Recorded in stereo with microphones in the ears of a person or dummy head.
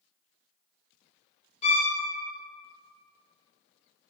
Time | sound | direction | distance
1.6 | a violin | 40° left (ahead or behind) | 0.6 m